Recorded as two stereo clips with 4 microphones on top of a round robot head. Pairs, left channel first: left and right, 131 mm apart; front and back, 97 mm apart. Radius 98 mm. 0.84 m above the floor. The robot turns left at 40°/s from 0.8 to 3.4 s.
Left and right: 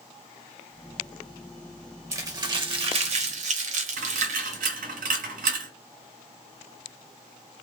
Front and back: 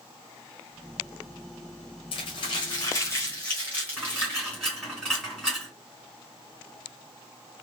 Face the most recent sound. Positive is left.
turn(degrees=-90)